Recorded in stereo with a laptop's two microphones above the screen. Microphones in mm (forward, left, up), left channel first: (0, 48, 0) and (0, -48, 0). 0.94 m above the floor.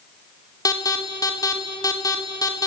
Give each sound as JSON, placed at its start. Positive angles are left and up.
{"t": 0.7, "sound": "an alarm", "side_deg": 35, "distance_m": 3.5}